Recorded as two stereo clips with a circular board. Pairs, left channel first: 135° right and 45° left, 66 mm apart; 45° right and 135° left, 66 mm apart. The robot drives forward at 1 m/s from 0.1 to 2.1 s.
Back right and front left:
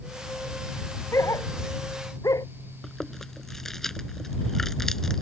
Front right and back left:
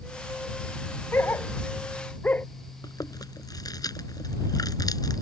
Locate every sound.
1.1 s a dog barking: 100° right; by 2.5 s 110° right
2.8 s chewing: 50° right